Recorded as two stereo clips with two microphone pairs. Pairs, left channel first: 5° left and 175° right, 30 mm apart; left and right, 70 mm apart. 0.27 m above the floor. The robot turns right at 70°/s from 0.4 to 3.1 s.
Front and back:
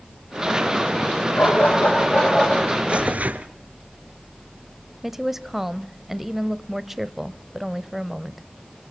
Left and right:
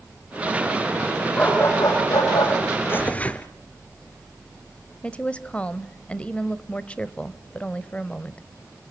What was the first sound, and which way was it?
A dog barking, 15° left.